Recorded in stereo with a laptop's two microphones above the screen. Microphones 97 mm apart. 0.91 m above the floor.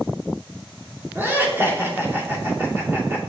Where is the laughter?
20° right (ahead or behind), 2 m.